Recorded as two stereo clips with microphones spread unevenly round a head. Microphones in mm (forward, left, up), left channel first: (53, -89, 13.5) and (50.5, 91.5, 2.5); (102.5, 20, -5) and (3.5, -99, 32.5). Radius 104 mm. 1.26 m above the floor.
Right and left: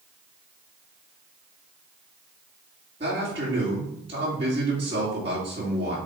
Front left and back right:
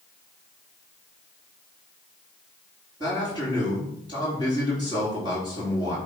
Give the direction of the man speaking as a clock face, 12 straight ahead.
7 o'clock.